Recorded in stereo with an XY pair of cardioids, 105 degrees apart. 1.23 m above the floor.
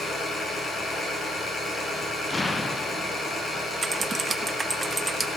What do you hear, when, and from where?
0.0 s an engine running: 15° left, 9 m
2.3 s an explosion: 25° left, 1.2 m
3.8 s typing on a keyboard: 25° right, 0.8 m